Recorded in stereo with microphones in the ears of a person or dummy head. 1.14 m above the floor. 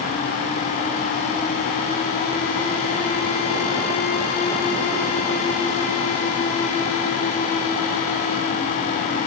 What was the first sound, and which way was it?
Only background noise.